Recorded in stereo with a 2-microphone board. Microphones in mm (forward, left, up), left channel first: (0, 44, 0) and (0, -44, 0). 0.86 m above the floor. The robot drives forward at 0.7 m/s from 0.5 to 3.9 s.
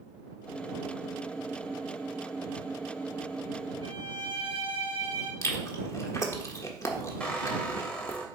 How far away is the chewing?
About 1.3 m.